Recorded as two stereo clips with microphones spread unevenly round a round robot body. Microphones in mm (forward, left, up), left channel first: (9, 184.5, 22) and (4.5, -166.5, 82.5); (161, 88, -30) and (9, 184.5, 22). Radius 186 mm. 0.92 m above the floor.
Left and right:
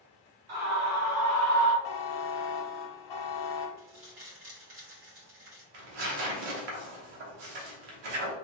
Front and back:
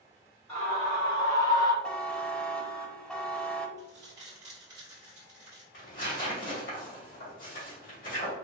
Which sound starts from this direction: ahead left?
A buzzer, at 1.8 s.